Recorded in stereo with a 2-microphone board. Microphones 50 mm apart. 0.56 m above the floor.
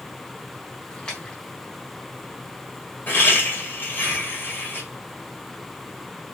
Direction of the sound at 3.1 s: 40° left (ahead or behind).